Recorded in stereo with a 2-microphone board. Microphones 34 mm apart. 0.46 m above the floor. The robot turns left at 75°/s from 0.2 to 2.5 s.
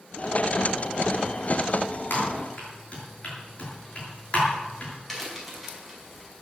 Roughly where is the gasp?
No gasp in this recording.